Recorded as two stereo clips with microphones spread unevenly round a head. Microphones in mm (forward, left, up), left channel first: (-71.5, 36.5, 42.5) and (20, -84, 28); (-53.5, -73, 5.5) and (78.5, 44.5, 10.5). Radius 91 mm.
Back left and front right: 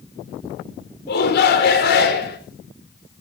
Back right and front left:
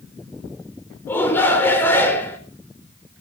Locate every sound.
1.1 s a shout: 140° left, 4 m